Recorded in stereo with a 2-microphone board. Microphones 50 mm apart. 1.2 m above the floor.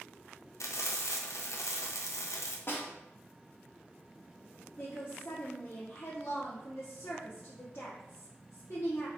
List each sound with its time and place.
0.6 s frying: 70° left (ahead or behind), 0.7 m
2.7 s a snare drum: 50° left (ahead or behind), 1.0 m
4.8 s a woman speaking: 55° left (ahead or behind), 1.1 m